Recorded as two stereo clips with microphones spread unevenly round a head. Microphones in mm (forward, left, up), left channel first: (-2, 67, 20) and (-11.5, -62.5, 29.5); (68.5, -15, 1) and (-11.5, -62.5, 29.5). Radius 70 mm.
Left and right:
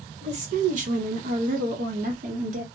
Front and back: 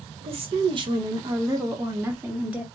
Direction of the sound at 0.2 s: 125° right.